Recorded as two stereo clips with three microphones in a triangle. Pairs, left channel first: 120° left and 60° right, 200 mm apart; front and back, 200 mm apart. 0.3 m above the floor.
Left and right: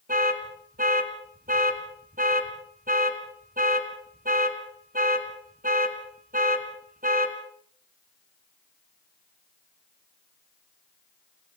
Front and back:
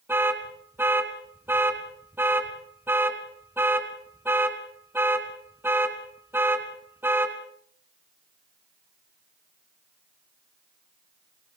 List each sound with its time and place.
0.1 s an alarm: 100° right, 2 m